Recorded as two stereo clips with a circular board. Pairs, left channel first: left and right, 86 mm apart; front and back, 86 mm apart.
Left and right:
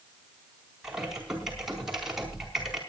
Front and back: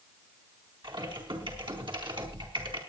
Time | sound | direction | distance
0.8 | typing on a keyboard | 175° right | 4 m